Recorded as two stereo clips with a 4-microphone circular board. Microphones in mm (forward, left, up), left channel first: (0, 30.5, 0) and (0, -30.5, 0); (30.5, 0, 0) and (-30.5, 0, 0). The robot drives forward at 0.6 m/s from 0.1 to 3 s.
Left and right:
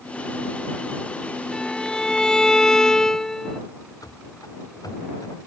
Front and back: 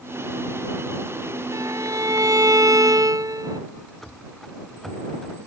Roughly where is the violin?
Behind.